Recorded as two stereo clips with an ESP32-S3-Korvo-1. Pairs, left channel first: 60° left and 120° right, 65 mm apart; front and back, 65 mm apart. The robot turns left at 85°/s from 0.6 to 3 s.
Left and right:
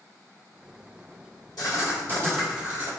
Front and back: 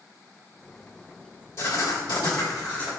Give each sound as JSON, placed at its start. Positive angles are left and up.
{"t": 1.6, "sound": "writing", "azimuth_deg": 45, "distance_m": 1.7}